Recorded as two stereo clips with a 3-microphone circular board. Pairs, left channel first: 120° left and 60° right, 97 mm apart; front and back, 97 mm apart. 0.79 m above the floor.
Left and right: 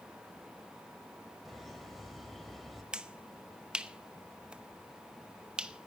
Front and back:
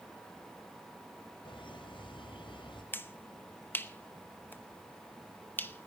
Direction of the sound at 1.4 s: 30° left.